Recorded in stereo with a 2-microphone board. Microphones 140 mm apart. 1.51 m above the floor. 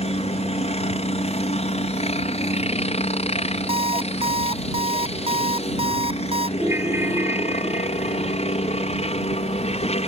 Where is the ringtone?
20° right (ahead or behind).